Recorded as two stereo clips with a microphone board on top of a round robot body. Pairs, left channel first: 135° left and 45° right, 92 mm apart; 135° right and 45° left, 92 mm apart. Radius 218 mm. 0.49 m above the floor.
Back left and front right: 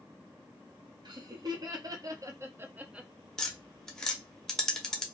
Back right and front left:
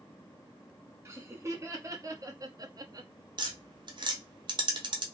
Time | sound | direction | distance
1.1 | laughter | 10° right | 1.7 m
3.4 | tapping | 50° left | 1.0 m